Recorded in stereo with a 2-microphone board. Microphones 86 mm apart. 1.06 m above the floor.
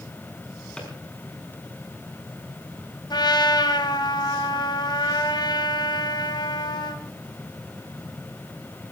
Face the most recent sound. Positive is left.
turn(degrees=55)  # may be behind; listen again after turning